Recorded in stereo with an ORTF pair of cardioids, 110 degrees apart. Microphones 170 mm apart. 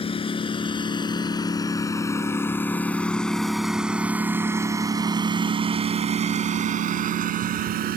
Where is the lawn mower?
35° left; by 8.0 s 65° right.